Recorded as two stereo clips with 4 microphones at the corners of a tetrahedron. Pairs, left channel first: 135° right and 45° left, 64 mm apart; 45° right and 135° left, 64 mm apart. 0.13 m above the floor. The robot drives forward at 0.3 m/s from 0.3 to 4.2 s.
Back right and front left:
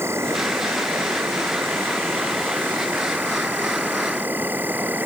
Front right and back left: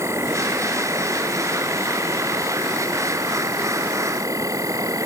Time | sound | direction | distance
0.0 | an insect | 95° left | ?